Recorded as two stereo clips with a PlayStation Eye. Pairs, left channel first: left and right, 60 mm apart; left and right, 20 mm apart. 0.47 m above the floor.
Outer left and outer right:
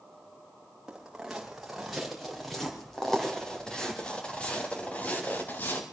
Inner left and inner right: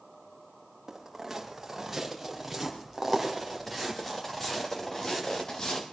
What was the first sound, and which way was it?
Footsteps, 10° right (ahead or behind).